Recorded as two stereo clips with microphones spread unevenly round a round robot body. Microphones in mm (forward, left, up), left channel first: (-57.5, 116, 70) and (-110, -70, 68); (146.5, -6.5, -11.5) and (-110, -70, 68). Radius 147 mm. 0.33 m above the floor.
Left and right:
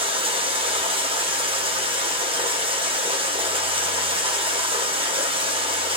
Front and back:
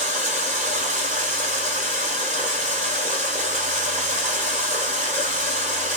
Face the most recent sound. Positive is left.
turn(degrees=-95)